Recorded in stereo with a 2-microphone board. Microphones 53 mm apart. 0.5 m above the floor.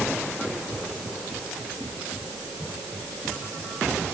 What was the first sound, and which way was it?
Only background noise.